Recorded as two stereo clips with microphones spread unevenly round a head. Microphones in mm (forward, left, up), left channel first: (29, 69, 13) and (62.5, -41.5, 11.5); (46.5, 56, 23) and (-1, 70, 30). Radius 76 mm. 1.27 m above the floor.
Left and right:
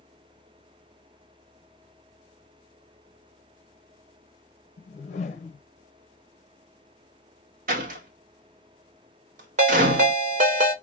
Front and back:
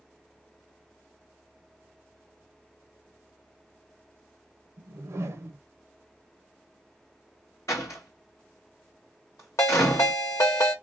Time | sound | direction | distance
4.8 | a whoosh | 140° left | 0.6 m
7.7 | a door slam | 90° right | 0.9 m
9.6 | a ringtone | 65° right | 1.3 m